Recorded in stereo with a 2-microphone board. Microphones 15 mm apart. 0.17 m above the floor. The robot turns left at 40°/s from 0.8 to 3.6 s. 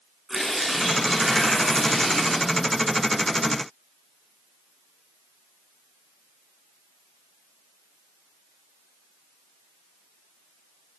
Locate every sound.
0.3 s tearing paper: 150° left, 9.5 m; by 2.5 s 85° left, 9.5 m